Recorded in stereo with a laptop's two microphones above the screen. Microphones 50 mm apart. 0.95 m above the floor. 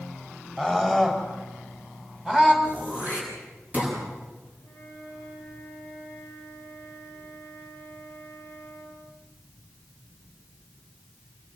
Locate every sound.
0.6 s a scream: 10° right (ahead or behind), 6.5 m; by 2.5 s 20° right (ahead or behind), 7.5 m
2.6 s throat clearing: 35° right (ahead or behind), 6 m
4.6 s a flute: 40° right (ahead or behind), 6 m